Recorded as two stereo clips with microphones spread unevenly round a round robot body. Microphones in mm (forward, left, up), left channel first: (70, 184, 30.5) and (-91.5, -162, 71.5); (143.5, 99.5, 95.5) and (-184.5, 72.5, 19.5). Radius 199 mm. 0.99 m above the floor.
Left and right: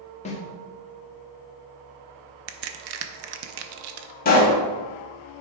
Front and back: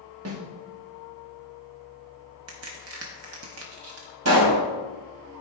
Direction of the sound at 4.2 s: 135° left.